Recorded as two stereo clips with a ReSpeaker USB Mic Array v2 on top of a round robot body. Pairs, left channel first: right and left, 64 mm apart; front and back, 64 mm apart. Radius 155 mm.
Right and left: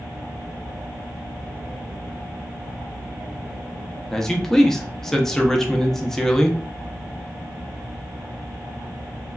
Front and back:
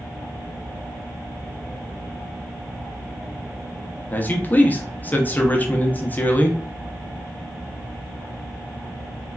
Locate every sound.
4.1 s a man speaking: 15° right, 0.7 m